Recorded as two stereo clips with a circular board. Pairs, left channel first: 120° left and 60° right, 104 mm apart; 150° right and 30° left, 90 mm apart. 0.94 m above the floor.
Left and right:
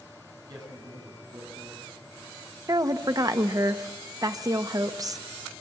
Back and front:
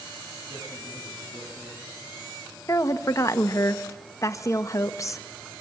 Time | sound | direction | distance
0.5 | a man speaking | 15° right | 8.5 m
2.7 | a woman speaking | 105° right | 1.1 m